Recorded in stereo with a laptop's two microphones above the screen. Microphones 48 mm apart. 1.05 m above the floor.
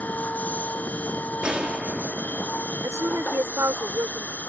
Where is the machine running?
35° left (ahead or behind).